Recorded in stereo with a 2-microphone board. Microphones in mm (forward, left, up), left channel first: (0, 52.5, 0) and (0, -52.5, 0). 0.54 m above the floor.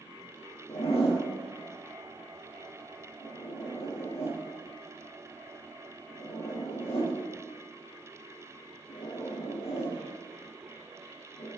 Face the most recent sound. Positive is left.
turn(degrees=75)  # may be behind; listen again after turning